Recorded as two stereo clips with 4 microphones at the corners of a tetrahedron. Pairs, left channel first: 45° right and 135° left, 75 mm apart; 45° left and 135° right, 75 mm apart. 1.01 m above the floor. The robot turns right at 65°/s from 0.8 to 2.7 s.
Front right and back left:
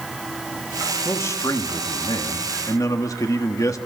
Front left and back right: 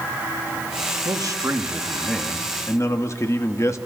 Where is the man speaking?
110° right, 1.4 m; by 3.8 s straight ahead, 1.4 m.